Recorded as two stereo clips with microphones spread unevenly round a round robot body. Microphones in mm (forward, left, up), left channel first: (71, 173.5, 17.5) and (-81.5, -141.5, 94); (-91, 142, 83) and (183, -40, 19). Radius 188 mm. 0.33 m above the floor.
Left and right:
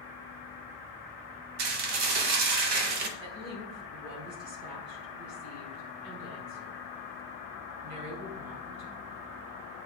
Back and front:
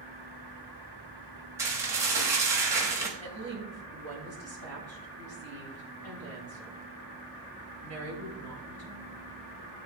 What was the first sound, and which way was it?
Dishes clattering, 105° right.